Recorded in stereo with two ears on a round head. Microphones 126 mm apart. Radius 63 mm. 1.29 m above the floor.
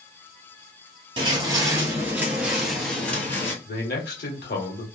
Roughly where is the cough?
No cough in this recording.